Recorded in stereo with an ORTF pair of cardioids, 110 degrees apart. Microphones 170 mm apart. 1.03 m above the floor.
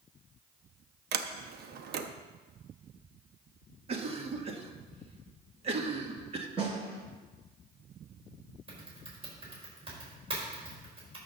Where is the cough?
35° right, 1.6 m.